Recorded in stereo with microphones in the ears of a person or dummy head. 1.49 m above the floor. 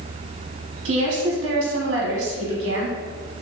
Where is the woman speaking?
70° right (ahead or behind), 1.2 m.